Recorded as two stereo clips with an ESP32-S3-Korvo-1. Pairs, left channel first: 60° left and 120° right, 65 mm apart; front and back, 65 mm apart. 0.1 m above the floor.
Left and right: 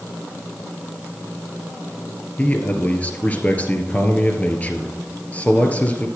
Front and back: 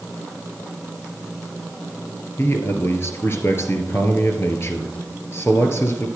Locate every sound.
2.4 s a man speaking: 5° left, 1.7 m